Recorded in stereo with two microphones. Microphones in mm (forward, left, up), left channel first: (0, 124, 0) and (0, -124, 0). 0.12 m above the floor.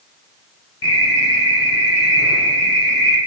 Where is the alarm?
65° left (ahead or behind), 7 m.